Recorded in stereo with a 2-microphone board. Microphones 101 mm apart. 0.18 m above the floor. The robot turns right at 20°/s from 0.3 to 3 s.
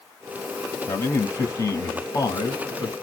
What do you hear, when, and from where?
0.9 s a man speaking: 55° left, 1.2 m; by 2.9 s 95° left, 1.2 m